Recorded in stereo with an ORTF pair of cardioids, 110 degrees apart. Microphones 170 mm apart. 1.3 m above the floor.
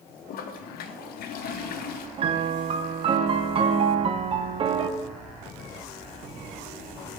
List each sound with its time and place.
0.3 s a toilet flushing: 65° left, 0.7 m
2.2 s a piano: 35° right, 0.6 m